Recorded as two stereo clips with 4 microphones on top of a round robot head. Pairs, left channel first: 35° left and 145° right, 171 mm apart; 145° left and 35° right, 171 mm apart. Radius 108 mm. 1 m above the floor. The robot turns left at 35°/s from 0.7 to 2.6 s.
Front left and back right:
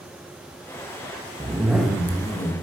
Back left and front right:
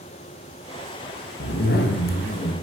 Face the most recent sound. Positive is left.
turn(degrees=100)